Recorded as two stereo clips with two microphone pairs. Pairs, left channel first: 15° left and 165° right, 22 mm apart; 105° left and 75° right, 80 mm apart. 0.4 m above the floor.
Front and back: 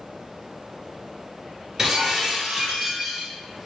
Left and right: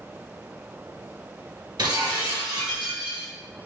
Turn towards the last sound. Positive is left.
turn(degrees=-90)